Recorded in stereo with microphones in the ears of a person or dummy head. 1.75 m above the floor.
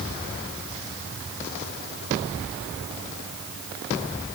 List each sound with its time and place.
Only background noise.